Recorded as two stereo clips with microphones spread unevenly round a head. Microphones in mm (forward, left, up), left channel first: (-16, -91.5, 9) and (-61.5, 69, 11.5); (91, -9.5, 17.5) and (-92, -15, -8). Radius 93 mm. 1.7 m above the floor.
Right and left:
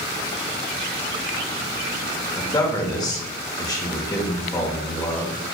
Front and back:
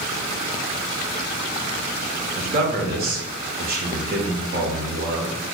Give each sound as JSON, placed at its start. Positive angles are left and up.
{"t": 2.4, "sound": "a man speaking", "azimuth_deg": -140, "distance_m": 1.0}